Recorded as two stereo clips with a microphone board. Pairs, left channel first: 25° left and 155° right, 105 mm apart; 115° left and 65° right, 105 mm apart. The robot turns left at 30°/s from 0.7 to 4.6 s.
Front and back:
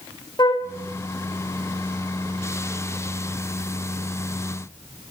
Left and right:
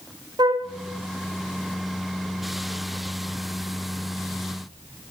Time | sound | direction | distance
0.4 | a flute | 20° right | 2.5 m